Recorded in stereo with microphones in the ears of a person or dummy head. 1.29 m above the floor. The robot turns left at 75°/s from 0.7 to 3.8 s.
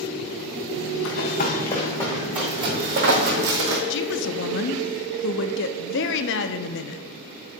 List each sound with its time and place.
1.1 s running footsteps: 65° left (ahead or behind), 3.5 m; by 3.8 s 60° right (ahead or behind), 3 m
3.9 s a woman speaking: 60° left (ahead or behind), 0.8 m